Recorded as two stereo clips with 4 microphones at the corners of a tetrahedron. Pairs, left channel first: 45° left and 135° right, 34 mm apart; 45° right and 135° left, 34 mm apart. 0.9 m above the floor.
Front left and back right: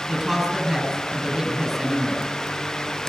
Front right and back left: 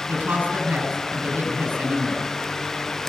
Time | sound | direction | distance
0.1 | a woman speaking | 155° left | 5.5 m